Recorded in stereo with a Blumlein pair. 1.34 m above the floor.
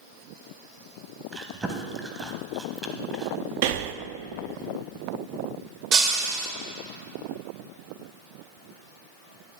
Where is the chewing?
10° right, 1.0 m.